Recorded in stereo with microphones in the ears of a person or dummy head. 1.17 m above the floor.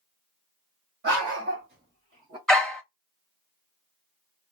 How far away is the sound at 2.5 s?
About 0.8 m.